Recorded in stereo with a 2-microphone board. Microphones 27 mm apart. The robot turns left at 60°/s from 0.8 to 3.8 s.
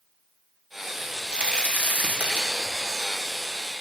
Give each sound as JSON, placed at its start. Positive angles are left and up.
{"t": 1.0, "sound": "a crack", "azimuth_deg": -25, "distance_m": 1.1}